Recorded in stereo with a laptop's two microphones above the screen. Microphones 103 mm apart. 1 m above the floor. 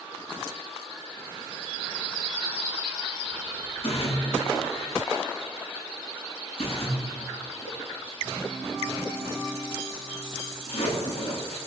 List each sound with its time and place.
3.8 s a splash: 65° left (ahead or behind), 9 m